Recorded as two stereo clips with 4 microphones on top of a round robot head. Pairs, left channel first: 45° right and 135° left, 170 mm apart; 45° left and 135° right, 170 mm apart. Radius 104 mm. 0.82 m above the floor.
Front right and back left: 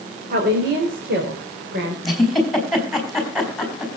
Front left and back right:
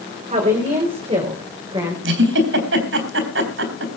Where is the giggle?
135° right, 4.5 m.